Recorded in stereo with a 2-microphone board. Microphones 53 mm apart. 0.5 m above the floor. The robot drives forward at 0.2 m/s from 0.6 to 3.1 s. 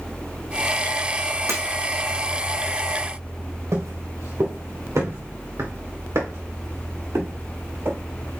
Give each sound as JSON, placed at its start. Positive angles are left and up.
{"t": 1.5, "sound": "breaking glass", "side_deg": -65, "distance_m": 4.0}
{"t": 3.7, "sound": "footsteps", "side_deg": -75, "distance_m": 2.5}